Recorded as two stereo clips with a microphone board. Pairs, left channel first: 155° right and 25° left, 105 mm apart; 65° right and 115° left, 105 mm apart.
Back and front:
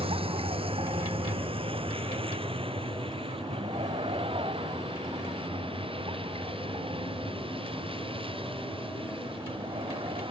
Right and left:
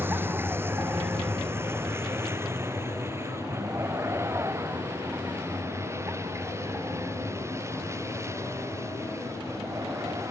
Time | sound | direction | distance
0.0 | a vehicle | 45° left | ?